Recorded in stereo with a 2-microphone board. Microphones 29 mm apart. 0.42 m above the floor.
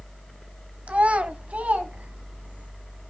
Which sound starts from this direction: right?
A child speaking, at 0.9 s.